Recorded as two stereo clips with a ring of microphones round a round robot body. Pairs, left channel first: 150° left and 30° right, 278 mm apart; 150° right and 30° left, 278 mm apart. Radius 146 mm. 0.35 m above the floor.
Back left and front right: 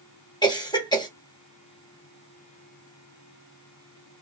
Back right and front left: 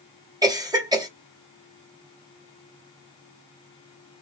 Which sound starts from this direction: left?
A cough, at 0.4 s.